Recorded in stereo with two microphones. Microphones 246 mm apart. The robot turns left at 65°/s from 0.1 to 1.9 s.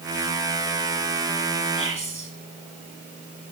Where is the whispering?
60° right (ahead or behind), 2.5 m; by 2.3 s 55° right (ahead or behind), 2.5 m.